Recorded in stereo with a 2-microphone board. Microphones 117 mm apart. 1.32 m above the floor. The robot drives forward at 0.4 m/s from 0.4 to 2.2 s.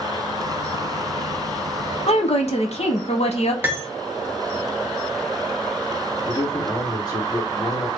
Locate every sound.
2.1 s a woman speaking: 60° left (ahead or behind), 0.8 m; by 3.5 s 65° left (ahead or behind), 0.7 m
3.6 s cutlery clinking: 20° right (ahead or behind), 0.9 m
6.3 s a man speaking: 35° left (ahead or behind), 1.4 m